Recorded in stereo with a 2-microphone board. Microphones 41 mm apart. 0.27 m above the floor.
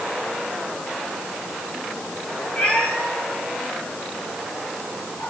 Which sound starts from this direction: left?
A cat meowing, at 2.6 s.